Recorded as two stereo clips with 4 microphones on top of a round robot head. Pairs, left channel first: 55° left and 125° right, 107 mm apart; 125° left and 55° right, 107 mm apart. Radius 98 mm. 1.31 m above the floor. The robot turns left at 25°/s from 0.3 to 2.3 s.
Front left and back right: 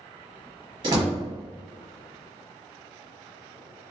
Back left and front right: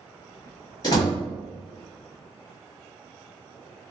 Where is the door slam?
175° right, 1.3 m; by 1.2 s 175° left, 1.3 m.